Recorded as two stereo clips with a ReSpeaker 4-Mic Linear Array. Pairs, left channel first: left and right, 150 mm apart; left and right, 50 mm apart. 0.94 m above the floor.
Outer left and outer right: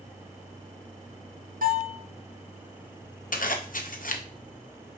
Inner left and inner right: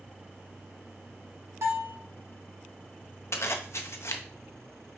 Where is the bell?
65° right (ahead or behind), 1.6 m.